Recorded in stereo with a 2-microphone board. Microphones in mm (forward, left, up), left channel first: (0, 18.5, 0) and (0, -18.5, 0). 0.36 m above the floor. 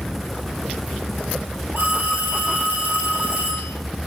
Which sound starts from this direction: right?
A phone ringing, at 1.8 s.